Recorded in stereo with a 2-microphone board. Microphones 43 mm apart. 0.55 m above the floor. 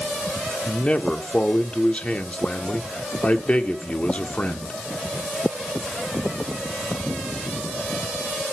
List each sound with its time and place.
0.7 s a man speaking: 30° left (ahead or behind), 1.1 m